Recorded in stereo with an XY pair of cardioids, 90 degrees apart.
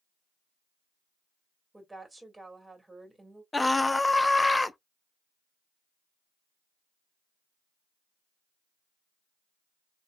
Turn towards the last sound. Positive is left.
turn(degrees=20)